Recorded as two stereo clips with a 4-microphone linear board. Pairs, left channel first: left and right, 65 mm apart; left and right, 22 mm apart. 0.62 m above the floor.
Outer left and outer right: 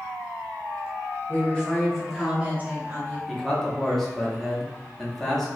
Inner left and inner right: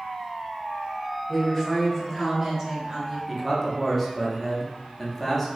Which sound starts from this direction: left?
A woman speaking, at 1.3 s.